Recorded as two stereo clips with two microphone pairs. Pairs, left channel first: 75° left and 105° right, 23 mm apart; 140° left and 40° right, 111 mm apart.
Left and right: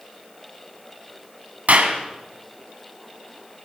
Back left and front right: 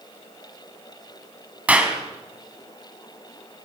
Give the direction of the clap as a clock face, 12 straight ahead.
4 o'clock.